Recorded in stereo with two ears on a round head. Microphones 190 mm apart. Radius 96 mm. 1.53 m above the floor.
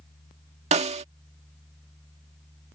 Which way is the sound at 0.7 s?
35° right (ahead or behind).